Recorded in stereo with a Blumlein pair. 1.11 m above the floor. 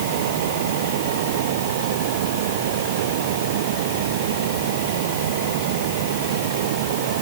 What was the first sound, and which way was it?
A fan, 55° right.